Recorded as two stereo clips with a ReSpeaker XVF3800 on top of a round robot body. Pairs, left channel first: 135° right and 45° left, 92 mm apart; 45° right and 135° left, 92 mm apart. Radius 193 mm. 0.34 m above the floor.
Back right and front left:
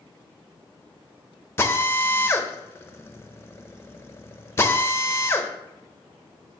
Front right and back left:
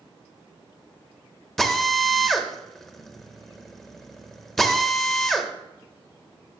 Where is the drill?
125° right, 1.2 m.